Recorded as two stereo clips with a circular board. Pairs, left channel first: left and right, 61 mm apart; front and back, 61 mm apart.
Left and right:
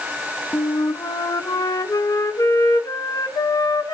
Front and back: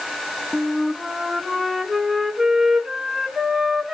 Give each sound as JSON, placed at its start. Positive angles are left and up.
{"t": 0.5, "sound": "a flute", "azimuth_deg": 95, "distance_m": 0.7}